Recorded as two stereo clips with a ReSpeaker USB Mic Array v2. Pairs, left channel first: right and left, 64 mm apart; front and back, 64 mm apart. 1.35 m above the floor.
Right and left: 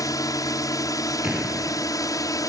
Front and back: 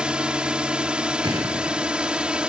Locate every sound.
0.0 s a drone: 105° right
1.2 s an explosion: 165° left